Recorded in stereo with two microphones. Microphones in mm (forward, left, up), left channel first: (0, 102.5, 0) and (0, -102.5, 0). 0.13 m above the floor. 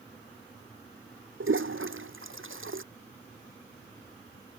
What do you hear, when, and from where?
1.4 s a toilet flushing: 80° right